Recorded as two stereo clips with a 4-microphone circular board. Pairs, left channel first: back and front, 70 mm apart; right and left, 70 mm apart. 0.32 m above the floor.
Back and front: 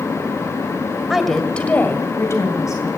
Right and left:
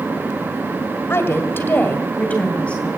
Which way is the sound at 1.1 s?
80° right.